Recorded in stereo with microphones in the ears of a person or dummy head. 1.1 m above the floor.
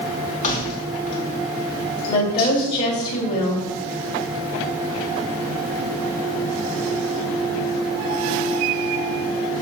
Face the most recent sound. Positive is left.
turn(degrees=35)  # may be behind; listen again after turning